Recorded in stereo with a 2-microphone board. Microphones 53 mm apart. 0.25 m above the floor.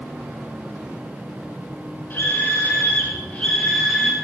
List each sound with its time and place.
2.1 s a scream: 40° left (ahead or behind), 3 m; by 4.1 s centre (ahead or behind), 2 m